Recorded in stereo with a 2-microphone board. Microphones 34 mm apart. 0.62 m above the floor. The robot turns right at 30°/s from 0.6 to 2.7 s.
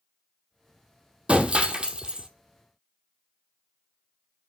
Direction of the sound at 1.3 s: 35° right (ahead or behind).